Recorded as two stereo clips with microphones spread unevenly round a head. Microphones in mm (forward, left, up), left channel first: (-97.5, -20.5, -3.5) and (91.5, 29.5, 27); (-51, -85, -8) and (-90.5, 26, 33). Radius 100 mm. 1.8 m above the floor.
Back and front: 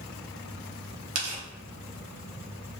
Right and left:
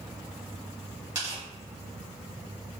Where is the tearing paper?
55° left, 0.8 m.